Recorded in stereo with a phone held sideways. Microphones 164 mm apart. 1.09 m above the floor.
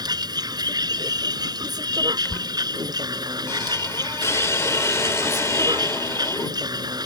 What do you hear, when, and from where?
0.0 s a vehicle: 25° right (ahead or behind)
2.2 s a squeak: 15° left (ahead or behind)